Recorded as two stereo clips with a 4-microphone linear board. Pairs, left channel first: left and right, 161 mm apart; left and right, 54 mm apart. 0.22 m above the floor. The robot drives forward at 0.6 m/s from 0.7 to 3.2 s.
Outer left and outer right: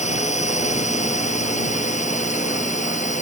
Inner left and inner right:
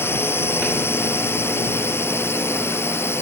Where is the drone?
45° left (ahead or behind); by 3.2 s 50° left (ahead or behind).